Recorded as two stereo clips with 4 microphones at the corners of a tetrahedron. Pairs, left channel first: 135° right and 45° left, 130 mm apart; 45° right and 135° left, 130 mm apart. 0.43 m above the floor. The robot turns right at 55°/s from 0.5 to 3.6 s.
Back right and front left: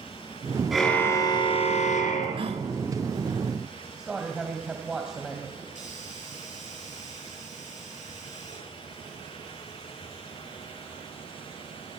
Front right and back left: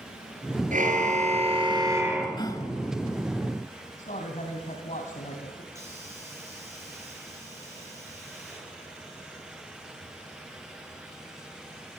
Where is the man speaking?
40° right, 2.5 m.